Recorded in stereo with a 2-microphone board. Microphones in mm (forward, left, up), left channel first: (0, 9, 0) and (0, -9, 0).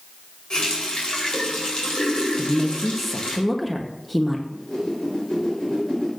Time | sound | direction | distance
0.5 | a running tap | 55° left (ahead or behind) | 4 m
2.4 | a woman speaking | 5° left (ahead or behind) | 1.0 m
4.5 | a whoosh | 35° left (ahead or behind) | 4.5 m